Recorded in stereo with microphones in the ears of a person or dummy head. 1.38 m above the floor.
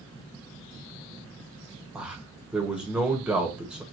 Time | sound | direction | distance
1.9 | a man speaking | 5° right (ahead or behind) | 1.1 m